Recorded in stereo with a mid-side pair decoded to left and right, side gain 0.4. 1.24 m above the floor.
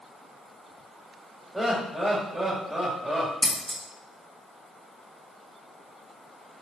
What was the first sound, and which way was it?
Laughter, 15° right.